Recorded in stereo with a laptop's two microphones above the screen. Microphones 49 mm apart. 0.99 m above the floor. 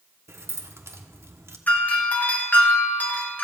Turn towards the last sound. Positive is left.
turn(degrees=35)  # may be behind; listen again after turning